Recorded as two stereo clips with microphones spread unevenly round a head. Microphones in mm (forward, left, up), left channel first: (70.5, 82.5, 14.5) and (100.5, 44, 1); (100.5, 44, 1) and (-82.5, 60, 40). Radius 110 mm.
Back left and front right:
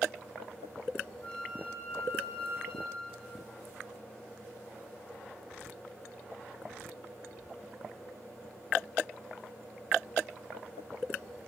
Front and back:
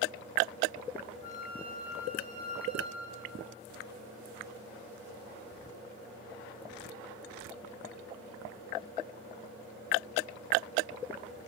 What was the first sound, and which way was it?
A flute, 75° left.